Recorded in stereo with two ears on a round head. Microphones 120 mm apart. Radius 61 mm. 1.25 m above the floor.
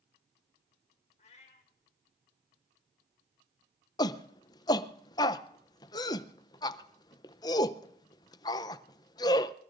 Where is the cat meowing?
50° left (ahead or behind), 1.7 m.